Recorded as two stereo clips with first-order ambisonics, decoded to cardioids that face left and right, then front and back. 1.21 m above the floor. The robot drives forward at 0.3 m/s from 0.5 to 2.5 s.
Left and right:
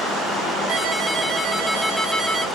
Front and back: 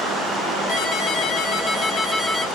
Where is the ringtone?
15° right, 0.8 m; by 2.5 s 80° right, 0.6 m.